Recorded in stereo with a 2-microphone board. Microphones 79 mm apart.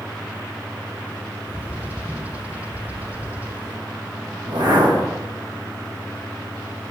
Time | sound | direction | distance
1.5 | a bird | 20° right (ahead or behind) | 1.4 m
4.4 | a whoosh | 75° right (ahead or behind) | 6 m